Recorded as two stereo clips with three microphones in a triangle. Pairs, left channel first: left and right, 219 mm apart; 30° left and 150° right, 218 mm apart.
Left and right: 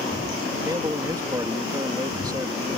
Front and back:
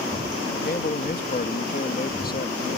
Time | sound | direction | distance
0.7 | a man speaking | 20° right | ?